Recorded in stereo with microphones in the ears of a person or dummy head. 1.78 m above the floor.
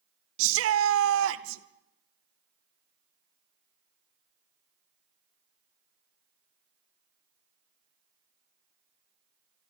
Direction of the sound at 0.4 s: 80° right.